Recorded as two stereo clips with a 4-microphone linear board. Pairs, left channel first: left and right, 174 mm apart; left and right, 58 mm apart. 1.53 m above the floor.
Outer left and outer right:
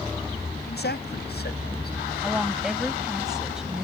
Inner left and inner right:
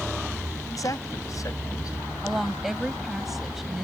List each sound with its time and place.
0.7 s a man speaking: 75° left (ahead or behind)
2.2 s a woman speaking: 5° right (ahead or behind)